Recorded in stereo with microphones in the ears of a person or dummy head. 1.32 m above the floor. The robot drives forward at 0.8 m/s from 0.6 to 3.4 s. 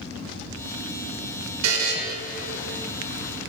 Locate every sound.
1.6 s a buzzer: 85° right, 1.2 m; by 1.9 s 75° right (ahead or behind), 1.2 m